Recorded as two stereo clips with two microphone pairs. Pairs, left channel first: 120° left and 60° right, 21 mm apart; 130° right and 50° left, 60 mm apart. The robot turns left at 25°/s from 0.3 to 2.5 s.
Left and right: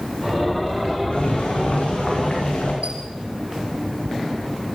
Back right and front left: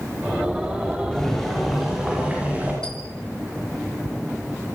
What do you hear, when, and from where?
1.1 s boiling: 150° left, 10 m; by 2.7 s 120° left, 10 m
2.8 s a squeak: 55° right, 4 m